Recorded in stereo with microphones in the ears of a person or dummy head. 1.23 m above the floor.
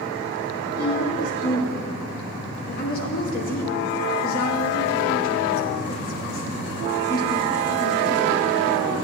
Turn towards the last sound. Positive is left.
turn(degrees=50)  # may be behind; listen again after turning